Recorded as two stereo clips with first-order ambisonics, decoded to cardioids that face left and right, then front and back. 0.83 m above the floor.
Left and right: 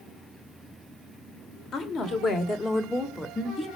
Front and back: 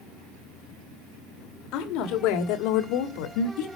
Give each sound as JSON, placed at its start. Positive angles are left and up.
{"t": 1.7, "sound": "a woman speaking", "azimuth_deg": 35, "distance_m": 2.5}